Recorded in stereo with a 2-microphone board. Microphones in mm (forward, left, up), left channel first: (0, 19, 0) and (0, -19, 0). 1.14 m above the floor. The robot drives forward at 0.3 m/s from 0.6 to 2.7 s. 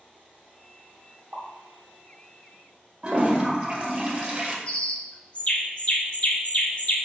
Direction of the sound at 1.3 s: 40° right (ahead or behind).